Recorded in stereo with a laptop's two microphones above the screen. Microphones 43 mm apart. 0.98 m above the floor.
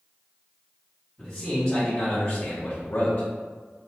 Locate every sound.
1.2 s a man speaking: centre (ahead or behind), 1.4 m; by 3.3 s 35° left (ahead or behind), 1.0 m